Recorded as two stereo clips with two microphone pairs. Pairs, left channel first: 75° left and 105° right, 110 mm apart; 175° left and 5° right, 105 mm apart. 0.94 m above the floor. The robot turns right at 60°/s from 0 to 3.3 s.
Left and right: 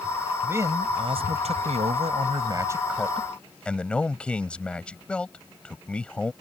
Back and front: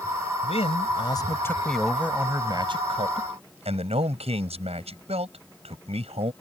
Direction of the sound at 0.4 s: Straight behind.